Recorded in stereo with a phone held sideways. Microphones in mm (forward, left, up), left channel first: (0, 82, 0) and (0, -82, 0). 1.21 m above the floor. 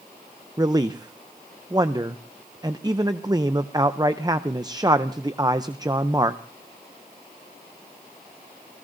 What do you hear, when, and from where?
0.6 s a man speaking: 25° right (ahead or behind), 0.6 m